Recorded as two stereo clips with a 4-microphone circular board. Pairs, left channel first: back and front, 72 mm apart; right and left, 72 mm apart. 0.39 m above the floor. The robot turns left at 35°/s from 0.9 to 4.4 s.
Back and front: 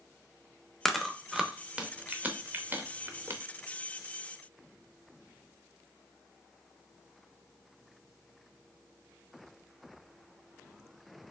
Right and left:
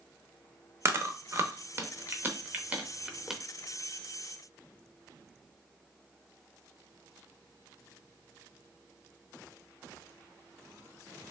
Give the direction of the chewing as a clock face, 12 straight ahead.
9 o'clock.